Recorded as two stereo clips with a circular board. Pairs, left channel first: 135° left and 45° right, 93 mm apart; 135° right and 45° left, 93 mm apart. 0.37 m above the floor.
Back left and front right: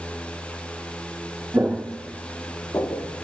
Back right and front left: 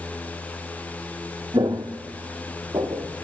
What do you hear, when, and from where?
1.5 s footsteps: 20° left, 0.6 m; by 3.0 s 85° left, 1.1 m